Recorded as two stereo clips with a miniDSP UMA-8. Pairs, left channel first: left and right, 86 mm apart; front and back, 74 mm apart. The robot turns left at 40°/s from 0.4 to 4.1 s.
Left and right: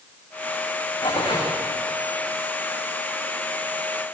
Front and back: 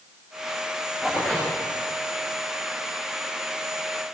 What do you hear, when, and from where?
1.0 s tearing paper: 100° left, 8.5 m; by 1.5 s 80° left, 8.5 m